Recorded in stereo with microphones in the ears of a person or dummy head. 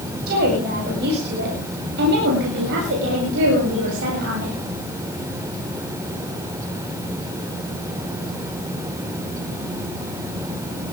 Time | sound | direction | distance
0.3 | a woman speaking | 50° right (ahead or behind) | 8 m